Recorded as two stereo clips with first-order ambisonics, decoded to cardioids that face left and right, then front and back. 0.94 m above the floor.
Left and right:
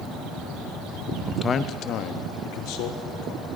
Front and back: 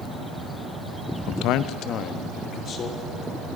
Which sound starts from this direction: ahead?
A man speaking, at 1.3 s.